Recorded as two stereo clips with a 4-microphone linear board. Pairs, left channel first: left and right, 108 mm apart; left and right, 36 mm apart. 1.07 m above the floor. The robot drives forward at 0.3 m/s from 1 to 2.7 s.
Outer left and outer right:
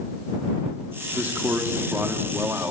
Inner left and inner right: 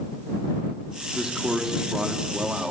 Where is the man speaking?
15° right (ahead or behind), 2.5 m; by 2.7 s 20° right (ahead or behind), 2.5 m.